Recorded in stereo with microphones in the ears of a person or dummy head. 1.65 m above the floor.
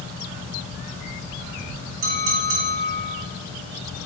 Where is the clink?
70° right (ahead or behind), 2.5 m.